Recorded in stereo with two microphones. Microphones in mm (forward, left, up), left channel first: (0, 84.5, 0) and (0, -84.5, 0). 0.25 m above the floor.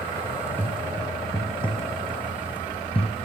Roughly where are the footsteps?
Centre.